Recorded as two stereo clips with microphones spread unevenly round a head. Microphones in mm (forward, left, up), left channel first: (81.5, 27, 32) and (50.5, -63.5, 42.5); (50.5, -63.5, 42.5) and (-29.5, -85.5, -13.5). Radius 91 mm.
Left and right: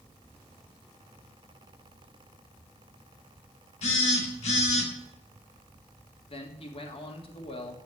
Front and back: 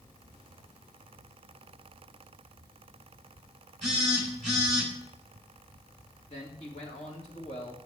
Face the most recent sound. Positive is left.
turn(degrees=50)